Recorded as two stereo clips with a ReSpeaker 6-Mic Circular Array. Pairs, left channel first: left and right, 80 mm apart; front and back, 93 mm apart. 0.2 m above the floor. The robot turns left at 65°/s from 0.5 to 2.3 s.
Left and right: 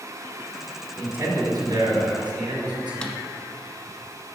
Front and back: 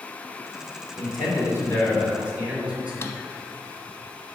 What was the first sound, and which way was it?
A man speaking, 15° right.